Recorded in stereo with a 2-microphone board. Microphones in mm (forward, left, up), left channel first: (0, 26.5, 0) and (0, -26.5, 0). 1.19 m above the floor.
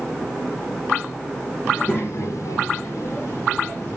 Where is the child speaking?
25° left (ahead or behind), 1.1 m; by 4.0 s 45° left (ahead or behind), 3 m.